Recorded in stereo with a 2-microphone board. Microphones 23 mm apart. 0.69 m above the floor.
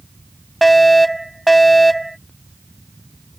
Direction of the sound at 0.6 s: 5° left (ahead or behind).